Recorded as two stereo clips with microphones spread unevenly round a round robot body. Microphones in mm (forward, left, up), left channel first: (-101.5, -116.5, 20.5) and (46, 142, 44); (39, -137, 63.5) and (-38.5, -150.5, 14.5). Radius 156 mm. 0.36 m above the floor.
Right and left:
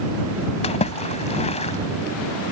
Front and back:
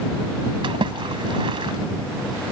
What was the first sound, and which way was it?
A splash, 170° left.